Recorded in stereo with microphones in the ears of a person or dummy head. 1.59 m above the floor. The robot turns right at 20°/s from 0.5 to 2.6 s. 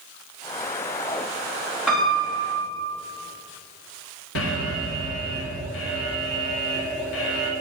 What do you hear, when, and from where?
1.9 s a piano: 5° right (ahead or behind), 4 m; by 2.9 s 10° left (ahead or behind), 4 m
4.3 s an alarm: 80° left, 1.6 m